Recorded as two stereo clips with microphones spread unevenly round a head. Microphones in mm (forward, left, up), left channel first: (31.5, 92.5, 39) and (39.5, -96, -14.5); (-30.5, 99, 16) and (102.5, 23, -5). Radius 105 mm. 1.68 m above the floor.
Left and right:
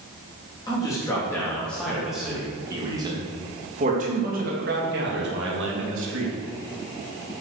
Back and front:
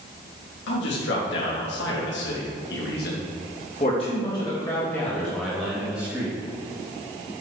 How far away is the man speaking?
About 3.5 m.